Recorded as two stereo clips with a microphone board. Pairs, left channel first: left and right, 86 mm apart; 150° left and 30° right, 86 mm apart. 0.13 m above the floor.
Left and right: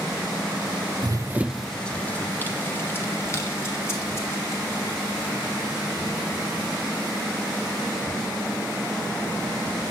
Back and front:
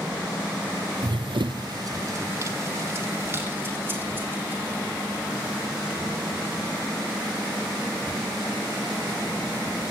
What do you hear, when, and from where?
1.0 s running footsteps: 60° right, 0.6 m; by 6.8 s 40° left, 7.5 m